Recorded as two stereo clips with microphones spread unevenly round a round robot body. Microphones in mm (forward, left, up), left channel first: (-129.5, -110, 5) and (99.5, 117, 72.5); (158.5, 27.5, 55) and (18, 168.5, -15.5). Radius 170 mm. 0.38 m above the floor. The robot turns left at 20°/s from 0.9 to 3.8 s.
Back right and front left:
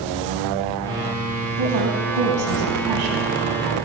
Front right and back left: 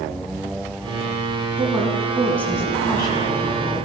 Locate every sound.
1.6 s a woman speaking: 60° left, 4 m; by 3.9 s 15° left, 4 m